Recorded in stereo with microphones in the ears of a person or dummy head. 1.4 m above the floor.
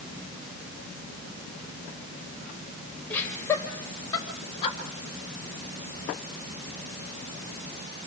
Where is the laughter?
10° left (ahead or behind), 5.5 m; by 4.8 s 35° left (ahead or behind), 6.5 m.